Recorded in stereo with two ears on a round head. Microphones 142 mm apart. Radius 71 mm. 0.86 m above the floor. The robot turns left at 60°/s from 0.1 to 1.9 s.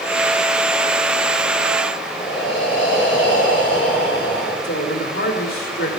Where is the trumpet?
I don't hear a trumpet.